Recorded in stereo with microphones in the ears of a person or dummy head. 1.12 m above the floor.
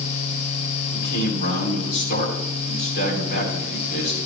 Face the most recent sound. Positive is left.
turn(degrees=60)  # may be behind; listen again after turning